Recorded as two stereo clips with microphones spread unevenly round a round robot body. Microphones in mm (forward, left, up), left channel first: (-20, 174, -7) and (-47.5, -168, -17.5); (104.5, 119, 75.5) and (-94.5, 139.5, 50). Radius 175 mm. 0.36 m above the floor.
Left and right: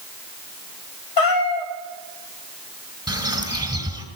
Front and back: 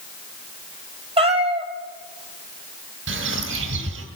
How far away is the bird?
About 2.5 m.